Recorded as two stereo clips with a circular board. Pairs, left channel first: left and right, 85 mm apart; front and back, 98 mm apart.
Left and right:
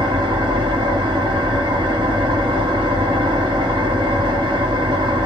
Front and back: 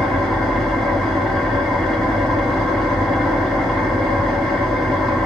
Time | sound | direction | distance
0.0 | an engine running | 85° right | 1.4 m